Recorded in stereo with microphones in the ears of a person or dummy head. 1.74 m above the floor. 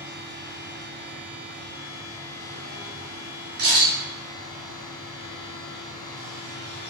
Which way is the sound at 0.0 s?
60° left (ahead or behind).